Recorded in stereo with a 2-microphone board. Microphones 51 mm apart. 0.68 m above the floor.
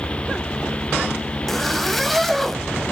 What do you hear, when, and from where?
1.5 s a zipper: centre (ahead or behind), 0.8 m